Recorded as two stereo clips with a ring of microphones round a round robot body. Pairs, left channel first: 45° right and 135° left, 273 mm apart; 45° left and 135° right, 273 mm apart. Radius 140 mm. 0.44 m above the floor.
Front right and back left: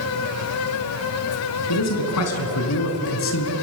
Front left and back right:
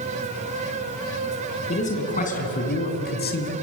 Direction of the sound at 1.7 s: 20° right.